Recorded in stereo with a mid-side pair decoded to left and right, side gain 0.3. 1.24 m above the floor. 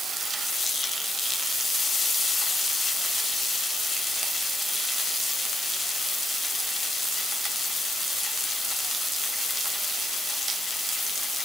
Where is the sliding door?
I don't hear a sliding door.